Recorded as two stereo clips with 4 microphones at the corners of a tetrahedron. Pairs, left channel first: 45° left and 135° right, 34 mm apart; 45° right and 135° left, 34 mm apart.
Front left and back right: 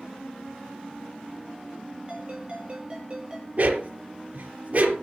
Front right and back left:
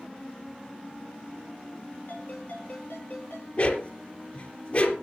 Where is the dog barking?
90° right, 3.5 m.